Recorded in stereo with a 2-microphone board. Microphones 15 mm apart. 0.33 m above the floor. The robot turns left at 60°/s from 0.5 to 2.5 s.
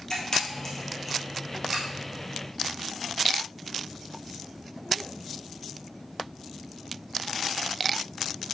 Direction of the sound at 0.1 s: 35° left (ahead or behind).